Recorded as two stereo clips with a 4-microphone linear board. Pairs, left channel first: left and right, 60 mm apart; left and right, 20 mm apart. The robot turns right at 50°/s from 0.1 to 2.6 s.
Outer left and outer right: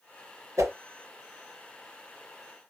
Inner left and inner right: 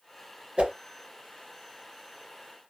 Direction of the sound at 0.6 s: 70° right (ahead or behind).